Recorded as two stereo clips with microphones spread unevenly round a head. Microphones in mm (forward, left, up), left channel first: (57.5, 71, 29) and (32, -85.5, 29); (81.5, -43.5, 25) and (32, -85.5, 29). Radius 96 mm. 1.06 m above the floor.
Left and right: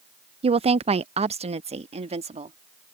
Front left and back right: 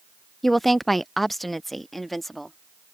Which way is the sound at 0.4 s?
45° right.